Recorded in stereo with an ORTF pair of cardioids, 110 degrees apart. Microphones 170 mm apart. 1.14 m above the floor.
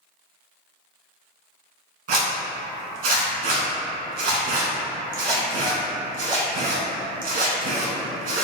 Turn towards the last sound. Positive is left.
turn(degrees=-55)